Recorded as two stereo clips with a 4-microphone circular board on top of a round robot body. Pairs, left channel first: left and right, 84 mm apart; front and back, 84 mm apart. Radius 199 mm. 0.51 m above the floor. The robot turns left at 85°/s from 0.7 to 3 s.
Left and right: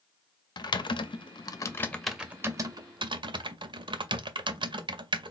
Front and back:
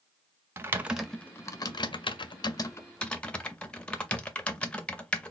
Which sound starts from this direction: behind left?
Typing on a keyboard, at 0.6 s.